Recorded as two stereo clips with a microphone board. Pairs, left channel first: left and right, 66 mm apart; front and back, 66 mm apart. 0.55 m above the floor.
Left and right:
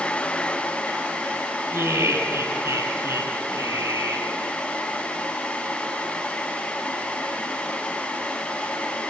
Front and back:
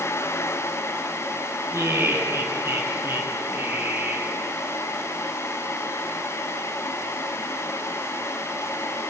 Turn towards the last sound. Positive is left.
turn(degrees=-120)